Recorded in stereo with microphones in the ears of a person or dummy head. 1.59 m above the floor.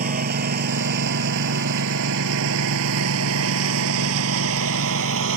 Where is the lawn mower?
45° right (ahead or behind); by 5.4 s 75° right (ahead or behind).